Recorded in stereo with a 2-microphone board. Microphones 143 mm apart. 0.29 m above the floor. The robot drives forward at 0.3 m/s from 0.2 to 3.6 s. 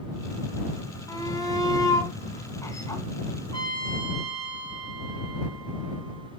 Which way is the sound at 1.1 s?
25° left (ahead or behind).